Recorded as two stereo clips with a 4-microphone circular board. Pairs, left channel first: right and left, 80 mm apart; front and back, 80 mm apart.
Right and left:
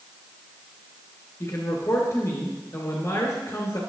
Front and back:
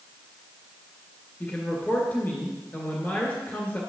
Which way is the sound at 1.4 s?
55° right.